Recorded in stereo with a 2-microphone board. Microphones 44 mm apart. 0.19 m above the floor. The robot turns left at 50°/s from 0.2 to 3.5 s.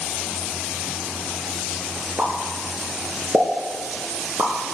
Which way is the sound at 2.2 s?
30° right (ahead or behind).